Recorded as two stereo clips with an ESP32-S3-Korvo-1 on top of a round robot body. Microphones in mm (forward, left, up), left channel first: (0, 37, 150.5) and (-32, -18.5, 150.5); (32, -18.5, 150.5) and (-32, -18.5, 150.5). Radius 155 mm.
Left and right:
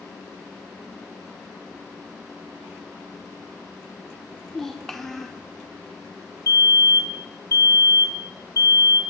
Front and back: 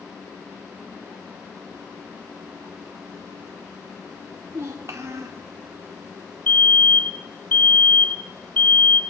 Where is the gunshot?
I don't hear a gunshot.